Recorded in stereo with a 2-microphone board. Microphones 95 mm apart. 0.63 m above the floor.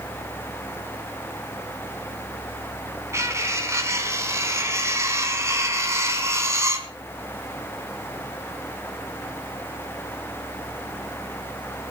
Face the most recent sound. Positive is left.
turn(degrees=-30)  # may be behind; listen again after turning